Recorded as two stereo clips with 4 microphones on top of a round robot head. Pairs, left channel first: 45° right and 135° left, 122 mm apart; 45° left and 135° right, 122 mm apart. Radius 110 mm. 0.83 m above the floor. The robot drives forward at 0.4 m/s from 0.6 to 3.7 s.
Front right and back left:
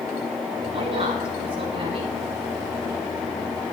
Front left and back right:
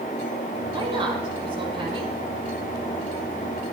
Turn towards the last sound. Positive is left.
turn(degrees=180)